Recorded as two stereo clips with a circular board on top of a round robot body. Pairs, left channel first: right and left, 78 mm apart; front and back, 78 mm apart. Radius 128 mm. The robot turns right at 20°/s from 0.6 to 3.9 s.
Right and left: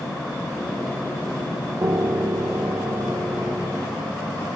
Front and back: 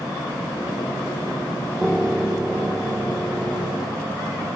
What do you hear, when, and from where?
1.8 s a piano: 95° left, 1.6 m; by 4.6 s 135° left, 1.6 m